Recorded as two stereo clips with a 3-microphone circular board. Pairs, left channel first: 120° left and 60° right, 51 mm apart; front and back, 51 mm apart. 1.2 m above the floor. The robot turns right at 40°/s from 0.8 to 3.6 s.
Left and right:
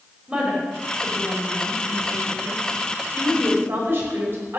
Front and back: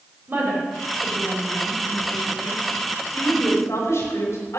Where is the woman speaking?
135° right, 5 m; by 4.6 s 20° right, 5 m.